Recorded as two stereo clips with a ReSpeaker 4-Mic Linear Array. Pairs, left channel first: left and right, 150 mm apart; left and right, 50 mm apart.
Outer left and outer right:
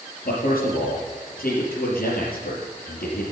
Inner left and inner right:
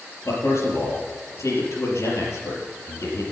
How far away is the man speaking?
About 4 m.